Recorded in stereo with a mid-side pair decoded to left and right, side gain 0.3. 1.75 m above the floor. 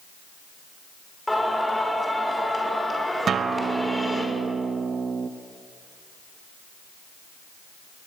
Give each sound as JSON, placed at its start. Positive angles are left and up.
{"t": 1.3, "sound": "singing", "azimuth_deg": 10, "distance_m": 6.0}
{"t": 3.3, "sound": "a guitar", "azimuth_deg": -70, "distance_m": 1.0}